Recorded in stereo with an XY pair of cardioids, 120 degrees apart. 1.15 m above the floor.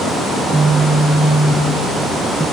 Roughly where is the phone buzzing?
Ahead.